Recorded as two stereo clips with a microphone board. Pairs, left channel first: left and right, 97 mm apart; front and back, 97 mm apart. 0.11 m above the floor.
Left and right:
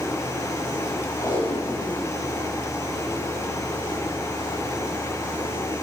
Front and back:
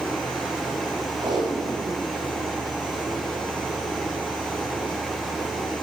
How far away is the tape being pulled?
About 9 m.